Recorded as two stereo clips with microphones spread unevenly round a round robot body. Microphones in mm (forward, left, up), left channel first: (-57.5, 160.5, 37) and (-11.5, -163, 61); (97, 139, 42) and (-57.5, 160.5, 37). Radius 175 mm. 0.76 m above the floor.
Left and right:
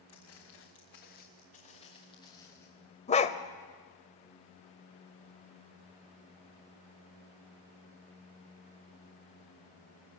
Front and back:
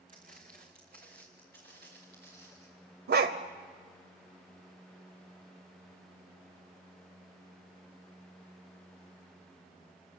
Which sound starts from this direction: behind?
A dog barking, at 3.1 s.